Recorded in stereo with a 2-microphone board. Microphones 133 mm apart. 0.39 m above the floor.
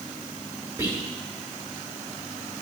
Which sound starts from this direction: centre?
Whispering, at 0.8 s.